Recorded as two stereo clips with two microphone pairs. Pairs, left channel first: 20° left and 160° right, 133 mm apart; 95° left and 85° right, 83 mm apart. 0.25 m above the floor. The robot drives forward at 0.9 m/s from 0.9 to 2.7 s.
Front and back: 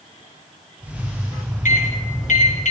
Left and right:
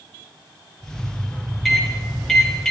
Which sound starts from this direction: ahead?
A microwave, at 1.6 s.